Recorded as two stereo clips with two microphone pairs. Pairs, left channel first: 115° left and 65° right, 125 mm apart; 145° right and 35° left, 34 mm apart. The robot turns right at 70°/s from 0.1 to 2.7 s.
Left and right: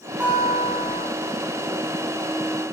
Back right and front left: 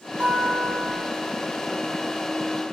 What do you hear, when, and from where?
0.2 s a guitar: 15° left, 1.8 m; by 1.1 s 75° left, 1.8 m